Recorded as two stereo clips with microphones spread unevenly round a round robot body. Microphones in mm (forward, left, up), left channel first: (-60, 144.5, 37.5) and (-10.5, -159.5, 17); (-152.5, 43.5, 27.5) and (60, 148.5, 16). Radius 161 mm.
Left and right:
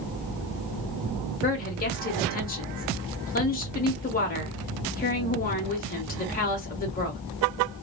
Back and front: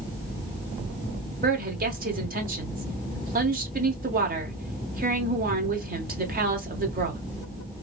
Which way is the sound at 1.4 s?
45° left.